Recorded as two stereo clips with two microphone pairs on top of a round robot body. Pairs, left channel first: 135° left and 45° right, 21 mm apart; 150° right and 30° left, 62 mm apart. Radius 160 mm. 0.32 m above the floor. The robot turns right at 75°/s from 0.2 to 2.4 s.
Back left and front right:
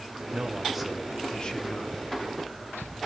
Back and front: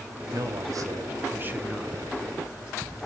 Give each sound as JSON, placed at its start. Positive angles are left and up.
{"t": 0.3, "sound": "a man speaking", "azimuth_deg": 0, "distance_m": 2.5}